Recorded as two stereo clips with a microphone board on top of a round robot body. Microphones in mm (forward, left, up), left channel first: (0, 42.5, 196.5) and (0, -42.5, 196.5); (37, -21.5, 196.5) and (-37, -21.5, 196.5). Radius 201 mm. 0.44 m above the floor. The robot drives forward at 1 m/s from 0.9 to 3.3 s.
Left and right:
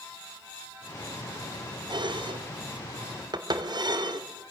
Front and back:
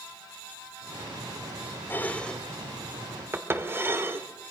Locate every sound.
1.9 s dishes clattering: 65° right, 1.5 m; by 4.3 s 120° right, 1.6 m